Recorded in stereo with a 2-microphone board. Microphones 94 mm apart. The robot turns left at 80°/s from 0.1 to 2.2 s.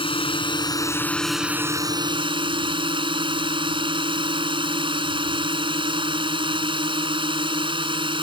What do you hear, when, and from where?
0.0 s a drone: 95° left; by 8.2 s 70° right